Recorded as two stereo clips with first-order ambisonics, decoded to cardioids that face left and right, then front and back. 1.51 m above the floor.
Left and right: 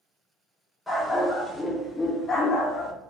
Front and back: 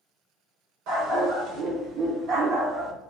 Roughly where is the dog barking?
Behind.